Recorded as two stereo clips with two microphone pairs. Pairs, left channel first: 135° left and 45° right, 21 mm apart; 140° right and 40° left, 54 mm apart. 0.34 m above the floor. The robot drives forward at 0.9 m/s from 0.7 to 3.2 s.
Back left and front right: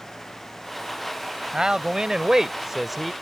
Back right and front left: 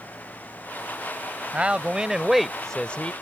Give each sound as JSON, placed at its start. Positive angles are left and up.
{"t": 1.5, "sound": "a man speaking", "azimuth_deg": -15}